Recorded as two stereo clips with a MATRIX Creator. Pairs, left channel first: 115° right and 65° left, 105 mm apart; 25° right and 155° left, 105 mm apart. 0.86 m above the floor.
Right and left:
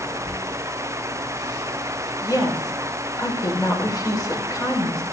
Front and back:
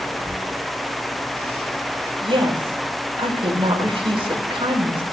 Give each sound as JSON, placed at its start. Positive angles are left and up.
{"t": 0.2, "sound": "a squeak", "azimuth_deg": -135, "distance_m": 6.0}
{"t": 2.2, "sound": "a woman speaking", "azimuth_deg": -165, "distance_m": 3.5}